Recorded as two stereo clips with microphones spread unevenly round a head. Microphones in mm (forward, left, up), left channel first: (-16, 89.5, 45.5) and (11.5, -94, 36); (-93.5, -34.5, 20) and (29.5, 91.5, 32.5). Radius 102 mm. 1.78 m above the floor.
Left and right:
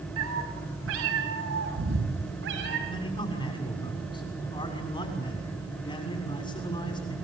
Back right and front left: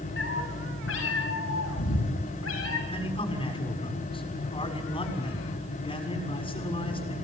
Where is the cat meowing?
95° right, 5.5 m; by 2.8 s 110° right, 7.5 m.